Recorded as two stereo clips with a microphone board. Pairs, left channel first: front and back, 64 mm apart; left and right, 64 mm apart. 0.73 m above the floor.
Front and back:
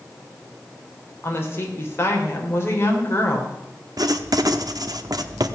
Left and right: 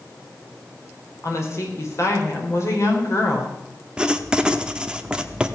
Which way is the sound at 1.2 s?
50° left.